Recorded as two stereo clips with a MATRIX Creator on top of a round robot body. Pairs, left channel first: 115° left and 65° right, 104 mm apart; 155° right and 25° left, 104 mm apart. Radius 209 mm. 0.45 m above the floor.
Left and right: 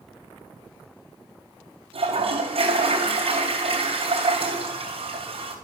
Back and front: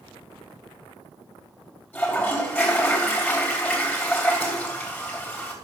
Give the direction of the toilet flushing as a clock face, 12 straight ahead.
3 o'clock.